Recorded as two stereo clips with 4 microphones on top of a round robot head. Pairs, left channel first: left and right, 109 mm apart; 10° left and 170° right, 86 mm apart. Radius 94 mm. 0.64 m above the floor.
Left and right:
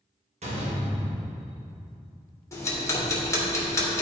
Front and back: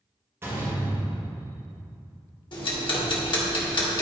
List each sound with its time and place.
0.4 s a door slam: 105° right, 1.9 m
2.5 s ticking: 30° left, 2 m